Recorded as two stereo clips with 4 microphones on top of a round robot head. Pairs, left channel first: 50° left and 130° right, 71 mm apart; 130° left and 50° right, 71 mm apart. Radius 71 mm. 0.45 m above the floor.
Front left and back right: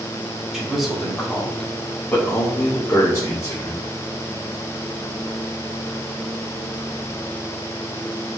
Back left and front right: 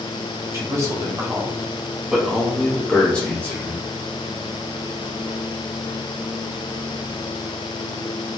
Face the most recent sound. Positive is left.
turn(degrees=70)